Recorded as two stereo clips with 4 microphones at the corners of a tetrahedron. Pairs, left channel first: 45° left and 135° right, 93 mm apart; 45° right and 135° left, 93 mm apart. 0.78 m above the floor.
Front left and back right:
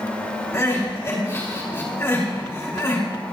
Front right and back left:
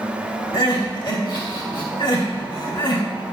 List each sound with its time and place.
0.5 s crying: 15° right, 3 m